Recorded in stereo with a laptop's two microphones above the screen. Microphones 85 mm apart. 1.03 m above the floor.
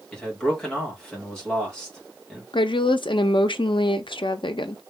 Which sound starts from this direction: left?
A woman speaking, at 2.5 s.